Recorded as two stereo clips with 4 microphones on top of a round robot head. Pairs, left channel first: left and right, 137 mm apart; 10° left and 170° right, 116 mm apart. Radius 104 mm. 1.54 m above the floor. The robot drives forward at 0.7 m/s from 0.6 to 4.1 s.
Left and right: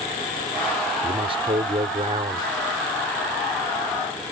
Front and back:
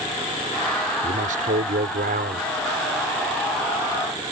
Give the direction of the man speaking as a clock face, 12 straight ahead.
5 o'clock.